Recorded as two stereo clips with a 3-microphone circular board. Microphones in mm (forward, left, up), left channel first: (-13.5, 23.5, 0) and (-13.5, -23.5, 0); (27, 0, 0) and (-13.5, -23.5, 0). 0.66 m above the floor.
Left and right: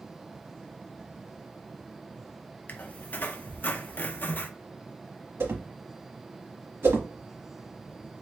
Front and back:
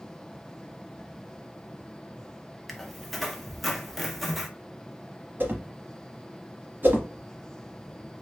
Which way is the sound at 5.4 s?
110° right.